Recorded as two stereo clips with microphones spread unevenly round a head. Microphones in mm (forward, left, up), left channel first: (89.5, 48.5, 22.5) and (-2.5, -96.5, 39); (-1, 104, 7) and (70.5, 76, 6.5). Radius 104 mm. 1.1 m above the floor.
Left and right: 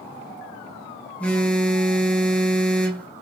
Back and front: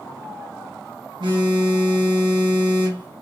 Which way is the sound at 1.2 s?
25° right.